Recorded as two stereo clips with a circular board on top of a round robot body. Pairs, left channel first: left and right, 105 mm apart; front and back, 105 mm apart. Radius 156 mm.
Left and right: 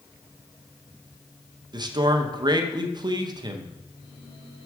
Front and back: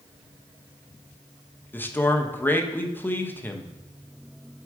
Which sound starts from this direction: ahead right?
A man speaking, at 1.7 s.